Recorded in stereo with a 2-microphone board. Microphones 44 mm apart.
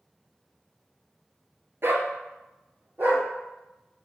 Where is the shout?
I don't hear a shout.